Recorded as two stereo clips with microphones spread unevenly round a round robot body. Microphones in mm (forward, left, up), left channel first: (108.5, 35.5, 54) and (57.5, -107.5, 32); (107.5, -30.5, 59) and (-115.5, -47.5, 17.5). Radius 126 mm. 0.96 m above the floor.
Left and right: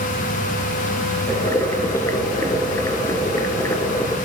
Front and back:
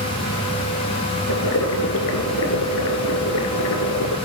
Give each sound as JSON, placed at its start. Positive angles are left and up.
{"t": 1.3, "sound": "boiling", "azimuth_deg": 5, "distance_m": 2.5}